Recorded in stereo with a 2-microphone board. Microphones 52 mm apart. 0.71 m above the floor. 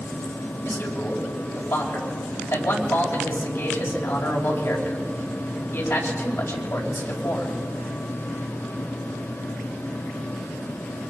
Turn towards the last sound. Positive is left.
turn(degrees=75)  # may be behind; listen again after turning